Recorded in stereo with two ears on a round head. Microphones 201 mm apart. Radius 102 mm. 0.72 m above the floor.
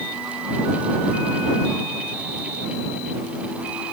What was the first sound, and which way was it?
Only background noise.